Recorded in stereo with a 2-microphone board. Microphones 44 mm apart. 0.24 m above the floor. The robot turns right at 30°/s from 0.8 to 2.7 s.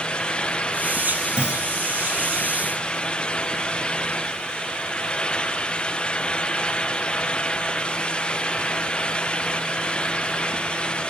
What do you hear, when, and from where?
1.4 s a clunk: 20° right (ahead or behind); by 1.7 s 10° right (ahead or behind)